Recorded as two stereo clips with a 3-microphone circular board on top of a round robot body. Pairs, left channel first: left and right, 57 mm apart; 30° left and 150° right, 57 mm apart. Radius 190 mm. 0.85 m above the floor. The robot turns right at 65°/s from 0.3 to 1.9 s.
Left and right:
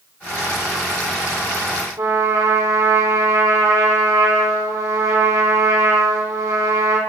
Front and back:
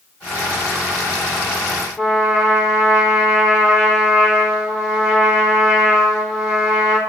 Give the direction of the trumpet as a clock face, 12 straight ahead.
2 o'clock.